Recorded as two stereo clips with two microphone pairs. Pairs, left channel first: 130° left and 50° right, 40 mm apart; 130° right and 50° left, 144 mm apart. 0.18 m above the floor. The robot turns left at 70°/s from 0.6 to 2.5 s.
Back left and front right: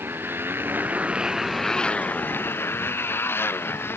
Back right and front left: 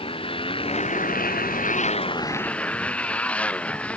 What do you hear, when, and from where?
0.0 s a motorcycle: 75° right; by 4.0 s 150° left